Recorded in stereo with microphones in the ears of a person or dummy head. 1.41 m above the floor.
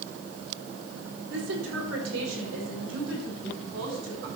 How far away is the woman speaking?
About 3 m.